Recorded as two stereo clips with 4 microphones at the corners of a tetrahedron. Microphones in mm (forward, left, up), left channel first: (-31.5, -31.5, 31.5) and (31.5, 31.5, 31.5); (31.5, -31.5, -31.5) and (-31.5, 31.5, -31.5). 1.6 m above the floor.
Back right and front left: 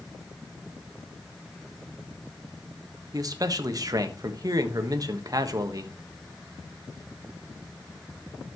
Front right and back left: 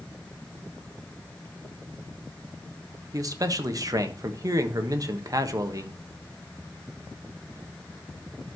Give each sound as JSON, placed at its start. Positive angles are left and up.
{"t": 3.1, "sound": "a man speaking", "azimuth_deg": 90, "distance_m": 1.3}